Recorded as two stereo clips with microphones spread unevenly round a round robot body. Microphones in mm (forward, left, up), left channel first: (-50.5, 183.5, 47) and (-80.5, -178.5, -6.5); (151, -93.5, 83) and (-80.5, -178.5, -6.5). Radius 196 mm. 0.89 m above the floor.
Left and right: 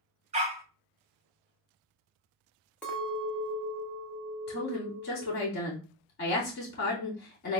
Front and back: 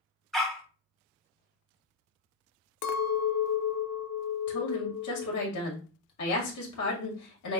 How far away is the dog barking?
About 0.5 m.